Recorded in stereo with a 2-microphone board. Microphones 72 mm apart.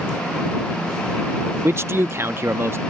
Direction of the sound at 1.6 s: 35° right (ahead or behind).